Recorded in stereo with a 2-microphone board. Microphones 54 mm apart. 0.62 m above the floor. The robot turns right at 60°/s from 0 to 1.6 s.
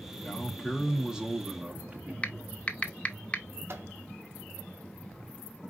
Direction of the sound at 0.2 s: 15° left (ahead or behind).